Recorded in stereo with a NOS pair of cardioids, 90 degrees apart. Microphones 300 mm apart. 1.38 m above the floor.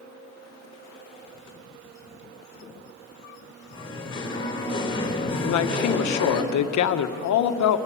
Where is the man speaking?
70° left, 1.4 m.